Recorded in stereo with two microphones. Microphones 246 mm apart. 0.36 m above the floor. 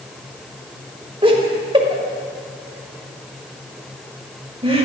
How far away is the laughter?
About 1.5 m.